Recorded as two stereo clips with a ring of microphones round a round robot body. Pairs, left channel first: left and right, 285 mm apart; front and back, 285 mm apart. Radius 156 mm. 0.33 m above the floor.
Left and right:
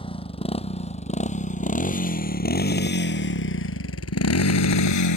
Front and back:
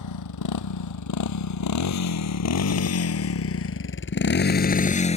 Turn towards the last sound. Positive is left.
turn(degrees=70)